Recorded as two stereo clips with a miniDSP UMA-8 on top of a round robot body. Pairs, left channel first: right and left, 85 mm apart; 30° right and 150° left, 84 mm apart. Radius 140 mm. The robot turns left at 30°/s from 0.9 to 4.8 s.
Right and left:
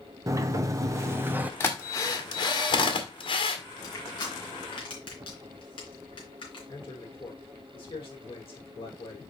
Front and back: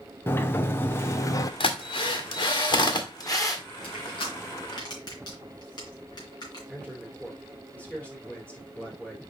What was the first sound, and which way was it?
A sliding door, 35° left.